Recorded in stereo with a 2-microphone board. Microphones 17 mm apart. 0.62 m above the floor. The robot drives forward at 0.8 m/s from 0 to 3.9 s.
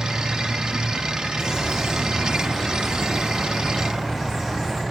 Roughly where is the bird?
Right.